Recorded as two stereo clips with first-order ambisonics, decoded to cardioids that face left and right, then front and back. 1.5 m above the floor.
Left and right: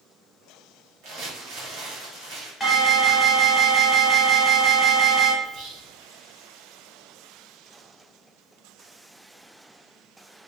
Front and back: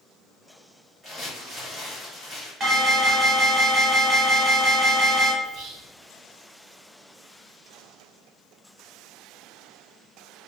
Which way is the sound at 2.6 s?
160° left.